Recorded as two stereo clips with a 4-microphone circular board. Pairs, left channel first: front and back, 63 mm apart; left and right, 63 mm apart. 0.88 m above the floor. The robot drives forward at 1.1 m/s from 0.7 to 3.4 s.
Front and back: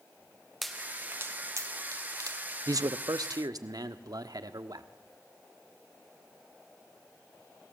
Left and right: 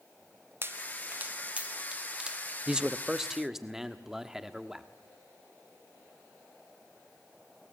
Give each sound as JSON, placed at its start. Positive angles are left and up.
{"t": 0.6, "sound": "a pop", "azimuth_deg": -90, "distance_m": 0.7}
{"t": 2.7, "sound": "a man speaking", "azimuth_deg": -165, "distance_m": 0.6}